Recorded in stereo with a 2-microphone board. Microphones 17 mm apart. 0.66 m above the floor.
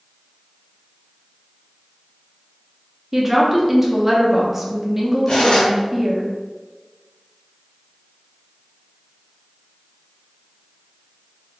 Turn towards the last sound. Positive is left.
turn(degrees=80)